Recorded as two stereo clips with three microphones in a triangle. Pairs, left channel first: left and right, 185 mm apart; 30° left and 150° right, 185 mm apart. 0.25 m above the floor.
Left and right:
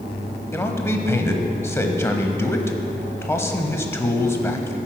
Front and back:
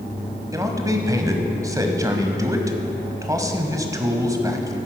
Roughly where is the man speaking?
Behind left.